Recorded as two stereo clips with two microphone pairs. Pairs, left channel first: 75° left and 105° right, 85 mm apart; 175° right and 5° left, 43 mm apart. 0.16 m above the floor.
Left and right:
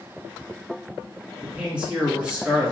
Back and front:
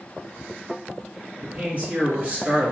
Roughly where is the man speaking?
Ahead right.